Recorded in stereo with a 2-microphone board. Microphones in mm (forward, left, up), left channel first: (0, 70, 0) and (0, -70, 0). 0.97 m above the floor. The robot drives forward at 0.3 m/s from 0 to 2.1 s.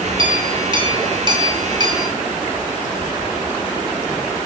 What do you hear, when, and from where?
0.2 s a clink: 35° right (ahead or behind), 3 m; by 2.1 s 30° right (ahead or behind), 3.5 m